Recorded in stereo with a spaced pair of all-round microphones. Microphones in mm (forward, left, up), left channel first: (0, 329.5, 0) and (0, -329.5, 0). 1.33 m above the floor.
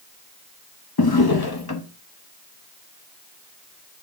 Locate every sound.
1.0 s a drawer: 35° left (ahead or behind), 0.8 m